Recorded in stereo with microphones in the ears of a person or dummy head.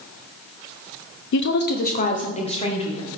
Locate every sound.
1.3 s a woman speaking: 70° left (ahead or behind), 0.6 m; by 3.1 s 30° left (ahead or behind), 2.0 m